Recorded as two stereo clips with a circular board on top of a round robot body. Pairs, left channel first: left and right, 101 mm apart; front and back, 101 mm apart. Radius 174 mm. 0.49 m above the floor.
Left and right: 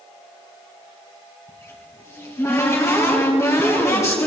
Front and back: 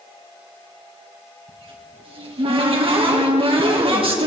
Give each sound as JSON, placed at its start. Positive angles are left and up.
{"t": 1.5, "sound": "a cupboard door", "azimuth_deg": 150, "distance_m": 3.5}